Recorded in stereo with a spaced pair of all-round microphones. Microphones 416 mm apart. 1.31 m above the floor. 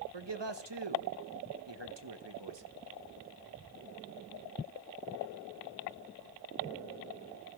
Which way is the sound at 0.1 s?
85° right.